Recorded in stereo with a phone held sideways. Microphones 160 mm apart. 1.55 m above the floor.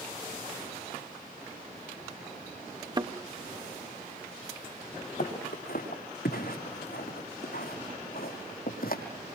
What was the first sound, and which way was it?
A thud, 25° right (ahead or behind).